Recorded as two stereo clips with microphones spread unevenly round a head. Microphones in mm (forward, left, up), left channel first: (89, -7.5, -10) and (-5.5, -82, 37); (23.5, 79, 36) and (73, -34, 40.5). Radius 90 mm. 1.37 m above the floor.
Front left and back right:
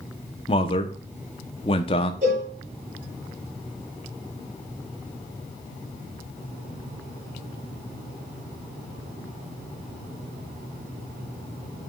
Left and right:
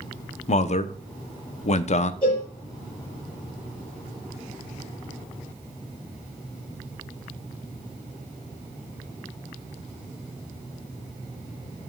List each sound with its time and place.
0.5 s a man speaking: 85° left, 0.8 m
2.2 s a cowbell: straight behind, 5.5 m